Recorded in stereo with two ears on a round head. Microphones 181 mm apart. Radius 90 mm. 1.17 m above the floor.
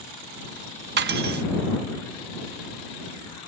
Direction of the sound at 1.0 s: 55° right (ahead or behind).